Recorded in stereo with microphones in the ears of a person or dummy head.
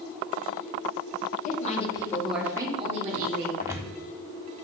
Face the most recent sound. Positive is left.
turn(degrees=-15)  # may be behind; listen again after turning